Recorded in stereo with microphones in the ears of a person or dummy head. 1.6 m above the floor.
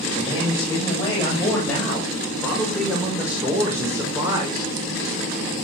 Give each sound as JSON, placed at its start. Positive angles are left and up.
{"t": 0.1, "sound": "a man speaking", "side_deg": 25, "distance_m": 8.0}